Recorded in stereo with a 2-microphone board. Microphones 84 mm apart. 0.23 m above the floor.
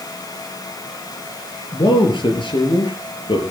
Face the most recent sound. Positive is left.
turn(degrees=75)  # may be behind; listen again after turning